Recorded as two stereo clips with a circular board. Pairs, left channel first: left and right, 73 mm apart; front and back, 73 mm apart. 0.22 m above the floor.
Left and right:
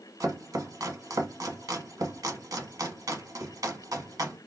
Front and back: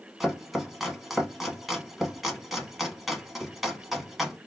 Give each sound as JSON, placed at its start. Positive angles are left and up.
{"t": 0.2, "sound": "chopping", "azimuth_deg": -90, "distance_m": 0.8}